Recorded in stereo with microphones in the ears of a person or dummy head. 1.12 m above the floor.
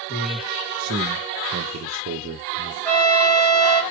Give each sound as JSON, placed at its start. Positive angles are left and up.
{"t": 0.1, "sound": "a man speaking", "side_deg": -45, "distance_m": 1.3}
{"t": 2.9, "sound": "a trumpet", "side_deg": 10, "distance_m": 0.8}